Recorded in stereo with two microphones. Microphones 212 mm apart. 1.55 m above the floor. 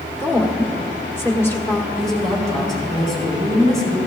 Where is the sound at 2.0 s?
Centre (ahead or behind), 5 m.